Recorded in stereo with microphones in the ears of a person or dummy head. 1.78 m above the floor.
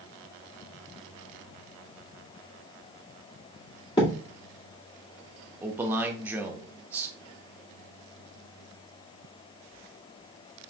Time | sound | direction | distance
4.0 | a thud | 20° left (ahead or behind) | 2 m
5.6 | a man speaking | 15° right (ahead or behind) | 0.9 m